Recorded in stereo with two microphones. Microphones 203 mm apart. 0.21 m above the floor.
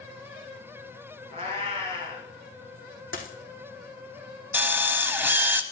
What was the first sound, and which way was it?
A cat meowing, 30° right (ahead or behind).